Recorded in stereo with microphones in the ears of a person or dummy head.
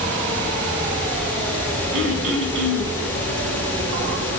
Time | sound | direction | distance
1.9 | throat clearing | 65° right (ahead or behind) | 4.5 m